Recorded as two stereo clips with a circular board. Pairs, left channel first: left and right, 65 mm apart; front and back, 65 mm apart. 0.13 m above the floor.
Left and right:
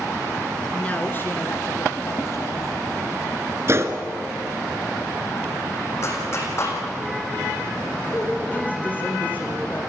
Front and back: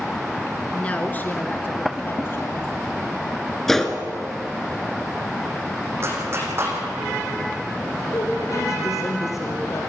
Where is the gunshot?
85° right, 1.6 m.